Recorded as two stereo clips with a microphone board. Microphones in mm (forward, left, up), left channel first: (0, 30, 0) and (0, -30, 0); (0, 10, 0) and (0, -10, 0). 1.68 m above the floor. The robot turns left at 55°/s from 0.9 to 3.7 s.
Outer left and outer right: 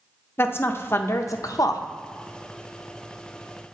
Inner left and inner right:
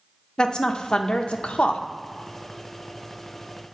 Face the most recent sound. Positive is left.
turn(degrees=-15)